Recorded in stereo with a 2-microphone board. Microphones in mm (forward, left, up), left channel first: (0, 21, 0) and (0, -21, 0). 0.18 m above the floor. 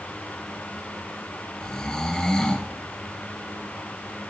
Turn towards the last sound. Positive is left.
turn(degrees=15)  # may be behind; listen again after turning